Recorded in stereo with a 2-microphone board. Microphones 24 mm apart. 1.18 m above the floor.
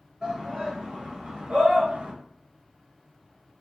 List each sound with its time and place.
0.2 s a shout: 35° right (ahead or behind), 1.2 m; by 2.1 s 50° right (ahead or behind), 0.5 m